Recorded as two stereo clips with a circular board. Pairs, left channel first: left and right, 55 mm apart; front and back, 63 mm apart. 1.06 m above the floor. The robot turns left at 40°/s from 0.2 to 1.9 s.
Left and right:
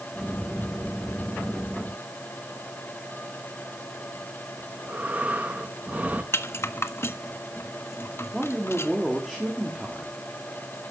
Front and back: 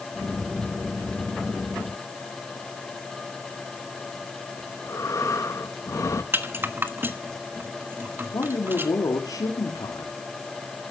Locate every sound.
4.6 s breathing: 30° right, 1.4 m
6.3 s a rattle: 125° left, 1.3 m
8.3 s a man speaking: 5° right, 2.5 m